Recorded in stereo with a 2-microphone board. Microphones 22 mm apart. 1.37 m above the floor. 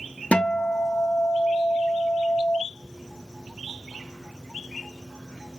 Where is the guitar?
60° left (ahead or behind), 0.5 m.